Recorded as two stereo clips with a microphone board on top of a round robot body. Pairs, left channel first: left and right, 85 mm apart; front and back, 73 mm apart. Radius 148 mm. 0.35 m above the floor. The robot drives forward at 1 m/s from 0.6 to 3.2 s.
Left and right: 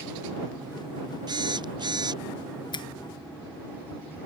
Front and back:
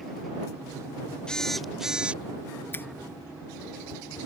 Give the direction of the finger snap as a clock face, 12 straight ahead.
10 o'clock.